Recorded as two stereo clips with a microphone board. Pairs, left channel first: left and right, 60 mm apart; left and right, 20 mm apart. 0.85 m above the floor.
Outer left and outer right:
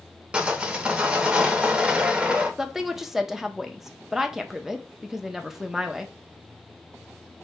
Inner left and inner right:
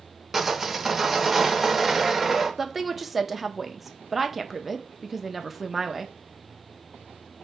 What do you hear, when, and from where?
0.3 s sawing: 15° right (ahead or behind), 0.8 m
2.6 s a woman speaking: 5° right (ahead or behind), 0.5 m